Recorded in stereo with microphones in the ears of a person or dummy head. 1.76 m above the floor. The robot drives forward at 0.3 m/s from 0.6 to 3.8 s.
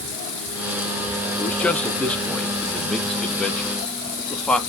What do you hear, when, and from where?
1.4 s a man speaking: 10° left (ahead or behind), 0.9 m; by 4.6 s 5° left (ahead or behind), 1.6 m